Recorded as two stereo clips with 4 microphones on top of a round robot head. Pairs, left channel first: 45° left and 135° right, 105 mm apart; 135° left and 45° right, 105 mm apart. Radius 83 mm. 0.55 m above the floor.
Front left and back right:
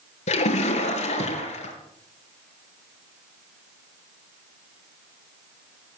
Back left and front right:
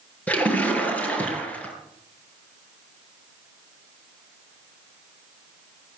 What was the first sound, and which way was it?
A splash, 60° left.